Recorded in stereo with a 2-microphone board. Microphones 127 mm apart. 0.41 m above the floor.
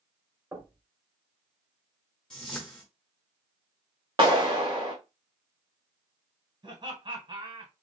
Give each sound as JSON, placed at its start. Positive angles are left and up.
{"t": 0.5, "sound": "knocking", "side_deg": -25, "distance_m": 1.3}
{"t": 2.3, "sound": "a whoosh", "side_deg": 5, "distance_m": 1.5}
{"t": 4.2, "sound": "a clap", "side_deg": -45, "distance_m": 1.5}
{"t": 6.6, "sound": "laughter", "side_deg": -45, "distance_m": 3.0}